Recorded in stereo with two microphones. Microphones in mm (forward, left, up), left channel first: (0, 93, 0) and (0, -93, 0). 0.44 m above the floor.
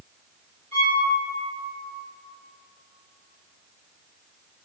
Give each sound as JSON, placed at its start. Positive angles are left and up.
{"t": 0.7, "sound": "a violin", "side_deg": -40, "distance_m": 1.8}